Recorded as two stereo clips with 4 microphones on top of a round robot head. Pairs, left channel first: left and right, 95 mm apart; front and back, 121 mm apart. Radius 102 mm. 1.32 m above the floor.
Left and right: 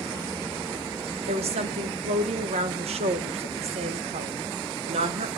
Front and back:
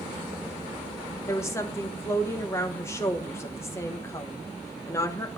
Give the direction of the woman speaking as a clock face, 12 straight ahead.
2 o'clock.